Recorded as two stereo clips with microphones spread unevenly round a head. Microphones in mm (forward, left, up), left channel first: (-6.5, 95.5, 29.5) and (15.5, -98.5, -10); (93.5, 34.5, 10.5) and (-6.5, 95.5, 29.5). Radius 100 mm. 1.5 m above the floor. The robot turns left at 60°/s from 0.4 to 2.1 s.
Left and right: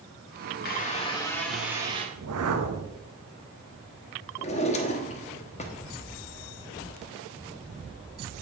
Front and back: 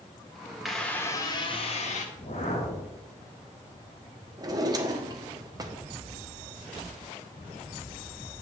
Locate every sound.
0.7 s a squeak: 65° left, 2 m; by 2.0 s 20° right, 2 m
2.1 s a whoosh: 95° right, 1.3 m
4.4 s a drawer: 120° left, 1.2 m